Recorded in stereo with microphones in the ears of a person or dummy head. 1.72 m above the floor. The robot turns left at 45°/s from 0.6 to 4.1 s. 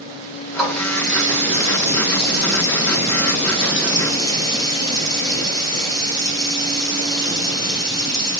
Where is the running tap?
175° right, 1.6 m; by 8.4 s 25° left, 1.6 m.